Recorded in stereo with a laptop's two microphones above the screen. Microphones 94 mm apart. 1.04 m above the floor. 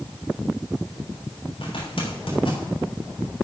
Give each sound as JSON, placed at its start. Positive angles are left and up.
{"t": 1.6, "sound": "a zipper", "side_deg": 70, "distance_m": 4.0}